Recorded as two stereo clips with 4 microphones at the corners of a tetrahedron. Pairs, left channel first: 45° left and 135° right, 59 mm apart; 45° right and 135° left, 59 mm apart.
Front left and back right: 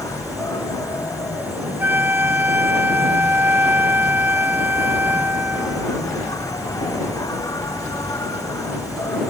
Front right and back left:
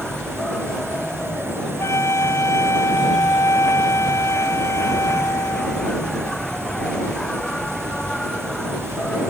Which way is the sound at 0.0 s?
35° left.